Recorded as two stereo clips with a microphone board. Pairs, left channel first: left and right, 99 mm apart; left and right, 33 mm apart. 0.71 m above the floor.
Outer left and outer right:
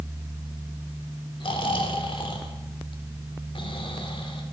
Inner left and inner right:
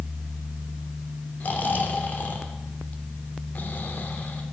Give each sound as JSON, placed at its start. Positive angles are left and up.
{"t": 1.4, "sound": "snoring", "side_deg": 55, "distance_m": 2.0}